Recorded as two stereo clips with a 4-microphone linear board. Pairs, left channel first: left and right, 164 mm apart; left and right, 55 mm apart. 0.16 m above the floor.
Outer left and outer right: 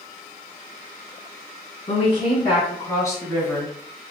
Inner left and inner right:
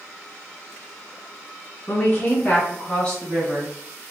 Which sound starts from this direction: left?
A woman speaking, at 1.9 s.